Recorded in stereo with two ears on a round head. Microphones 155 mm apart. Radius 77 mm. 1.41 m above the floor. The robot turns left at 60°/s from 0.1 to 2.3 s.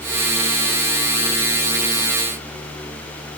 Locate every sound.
Only background noise.